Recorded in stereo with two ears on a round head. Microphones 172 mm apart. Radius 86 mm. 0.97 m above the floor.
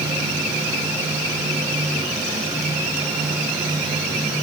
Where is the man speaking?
No man speaking in this recording.